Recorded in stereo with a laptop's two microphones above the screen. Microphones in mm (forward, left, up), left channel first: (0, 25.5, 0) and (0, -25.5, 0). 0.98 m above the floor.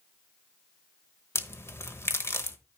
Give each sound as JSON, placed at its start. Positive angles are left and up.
{"t": 1.4, "sound": "a crack", "side_deg": 55, "distance_m": 1.0}